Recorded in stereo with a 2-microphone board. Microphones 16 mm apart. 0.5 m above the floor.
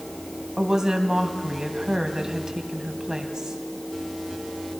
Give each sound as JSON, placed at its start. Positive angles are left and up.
{"t": 0.6, "sound": "a woman speaking", "side_deg": -35, "distance_m": 3.0}